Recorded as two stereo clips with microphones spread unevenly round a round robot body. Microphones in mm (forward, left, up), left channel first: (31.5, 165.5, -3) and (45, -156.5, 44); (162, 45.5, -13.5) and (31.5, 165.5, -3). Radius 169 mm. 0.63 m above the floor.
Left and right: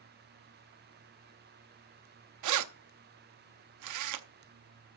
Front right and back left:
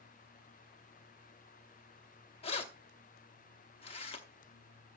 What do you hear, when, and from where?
2.4 s keys jangling: 90° right, 0.7 m